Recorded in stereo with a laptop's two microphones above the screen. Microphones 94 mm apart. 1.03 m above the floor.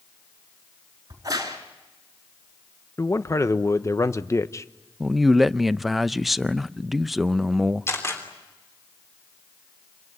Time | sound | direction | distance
1.1 | a crack | 40° right (ahead or behind) | 4.5 m
3.0 | a man speaking | 30° left (ahead or behind) | 0.9 m
5.0 | a man speaking | centre (ahead or behind) | 0.6 m
7.9 | a camera shutter | 30° left (ahead or behind) | 3.5 m